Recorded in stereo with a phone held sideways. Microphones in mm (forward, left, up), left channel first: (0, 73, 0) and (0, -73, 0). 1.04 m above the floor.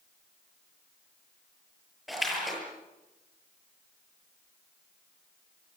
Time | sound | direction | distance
2.1 | a splash | centre (ahead or behind) | 8 m